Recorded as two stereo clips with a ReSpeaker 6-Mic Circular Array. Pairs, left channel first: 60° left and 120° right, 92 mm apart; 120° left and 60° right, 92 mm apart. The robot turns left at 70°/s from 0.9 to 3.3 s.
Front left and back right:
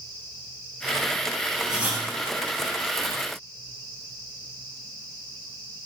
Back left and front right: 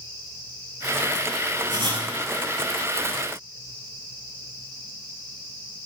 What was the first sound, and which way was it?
Writing, 35° right.